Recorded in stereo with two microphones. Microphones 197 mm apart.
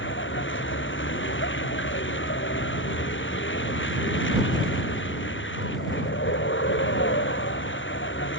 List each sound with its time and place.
0.0 s a vehicle: 75° left (ahead or behind)